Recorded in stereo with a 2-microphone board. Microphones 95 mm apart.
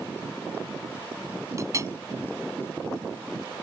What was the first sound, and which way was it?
A clink, 35° right (ahead or behind).